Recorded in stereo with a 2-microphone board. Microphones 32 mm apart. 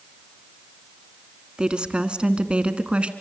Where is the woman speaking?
25° right (ahead or behind), 1.8 m; by 3.1 s 35° right (ahead or behind), 1.9 m.